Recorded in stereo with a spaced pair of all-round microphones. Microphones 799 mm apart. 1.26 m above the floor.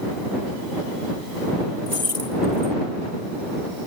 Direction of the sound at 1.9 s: 55° right (ahead or behind).